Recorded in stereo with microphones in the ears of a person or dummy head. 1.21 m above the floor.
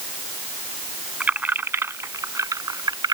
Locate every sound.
1.2 s keys jangling: 5° right (ahead or behind); by 3.1 s 20° right (ahead or behind)